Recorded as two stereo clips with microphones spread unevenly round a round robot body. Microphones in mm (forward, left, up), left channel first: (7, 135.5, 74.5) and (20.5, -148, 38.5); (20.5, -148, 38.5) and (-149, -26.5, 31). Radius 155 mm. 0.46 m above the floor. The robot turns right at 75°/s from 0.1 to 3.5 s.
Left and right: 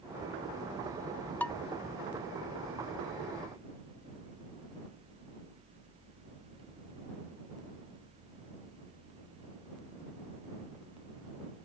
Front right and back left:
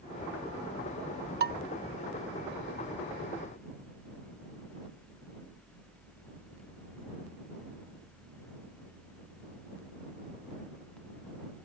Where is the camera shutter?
No camera shutter in this recording.